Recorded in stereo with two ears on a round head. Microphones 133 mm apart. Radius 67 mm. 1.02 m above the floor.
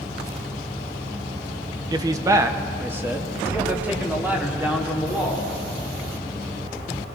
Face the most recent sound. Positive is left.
turn(degrees=-10)  # may be behind; listen again after turning